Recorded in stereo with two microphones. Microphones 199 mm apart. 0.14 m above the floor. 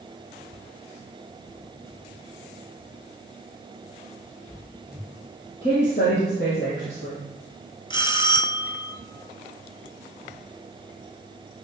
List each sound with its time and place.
5.6 s a woman speaking: 60° left (ahead or behind), 3 m
7.9 s a bell: 25° left (ahead or behind), 0.6 m